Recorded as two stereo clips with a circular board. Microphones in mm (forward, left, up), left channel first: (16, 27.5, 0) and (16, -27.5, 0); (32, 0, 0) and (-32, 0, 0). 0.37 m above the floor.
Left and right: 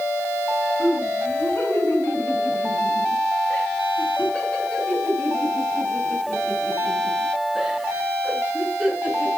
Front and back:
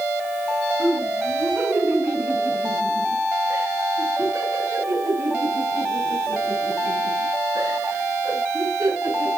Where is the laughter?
120° left, 3.5 m; by 9.3 s 170° right, 5 m.